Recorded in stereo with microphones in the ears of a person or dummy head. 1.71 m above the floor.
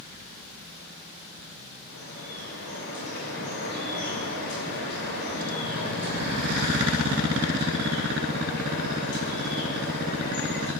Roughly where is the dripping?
Left.